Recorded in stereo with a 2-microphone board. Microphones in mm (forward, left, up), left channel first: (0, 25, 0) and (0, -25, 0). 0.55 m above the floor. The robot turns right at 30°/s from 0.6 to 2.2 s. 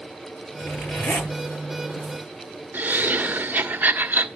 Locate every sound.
0.6 s a zipper: 65° left (ahead or behind), 10 m; by 1.3 s 45° left (ahead or behind), 10 m
2.7 s laughter: 45° right (ahead or behind), 1.4 m